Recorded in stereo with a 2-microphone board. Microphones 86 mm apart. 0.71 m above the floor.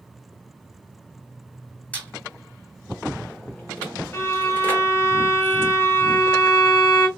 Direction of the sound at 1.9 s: 15° left (ahead or behind).